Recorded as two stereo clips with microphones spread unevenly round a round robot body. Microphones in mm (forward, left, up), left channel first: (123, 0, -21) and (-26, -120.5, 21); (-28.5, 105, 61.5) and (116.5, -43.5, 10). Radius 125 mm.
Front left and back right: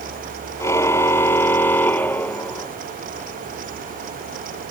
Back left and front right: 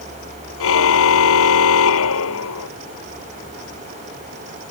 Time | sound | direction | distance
0.6 | a car horn | 120° left | ?